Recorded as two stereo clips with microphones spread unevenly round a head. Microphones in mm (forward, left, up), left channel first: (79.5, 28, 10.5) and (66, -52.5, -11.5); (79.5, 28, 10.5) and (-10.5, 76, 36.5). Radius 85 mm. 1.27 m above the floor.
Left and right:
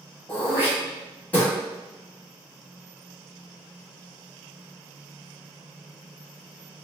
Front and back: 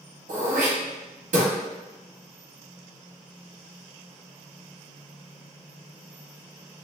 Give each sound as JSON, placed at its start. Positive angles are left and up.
{"t": 0.3, "sound": "throat clearing", "azimuth_deg": 165, "distance_m": 1.0}